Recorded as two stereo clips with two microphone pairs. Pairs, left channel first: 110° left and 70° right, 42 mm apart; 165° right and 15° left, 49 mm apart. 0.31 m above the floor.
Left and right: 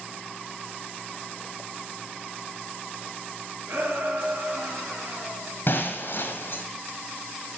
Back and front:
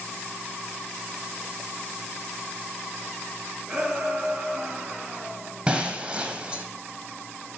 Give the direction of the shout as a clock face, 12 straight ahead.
2 o'clock.